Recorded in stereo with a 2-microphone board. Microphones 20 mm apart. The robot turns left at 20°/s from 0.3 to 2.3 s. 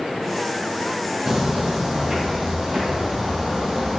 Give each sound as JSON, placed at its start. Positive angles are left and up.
{"t": 1.3, "sound": "footsteps", "side_deg": -30, "distance_m": 1.8}